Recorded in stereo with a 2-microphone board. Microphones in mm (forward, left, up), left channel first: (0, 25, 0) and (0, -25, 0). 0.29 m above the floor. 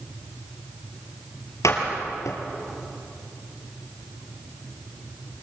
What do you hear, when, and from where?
1.6 s a door slam: 80° left, 5 m